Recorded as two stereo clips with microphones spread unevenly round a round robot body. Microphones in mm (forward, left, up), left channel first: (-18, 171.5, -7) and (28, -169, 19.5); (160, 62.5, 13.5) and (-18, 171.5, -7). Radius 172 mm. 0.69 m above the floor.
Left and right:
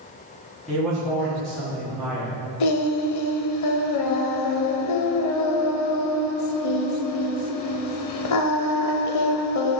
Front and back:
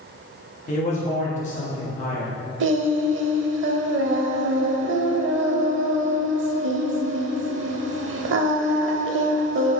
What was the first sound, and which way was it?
A man speaking, 15° left.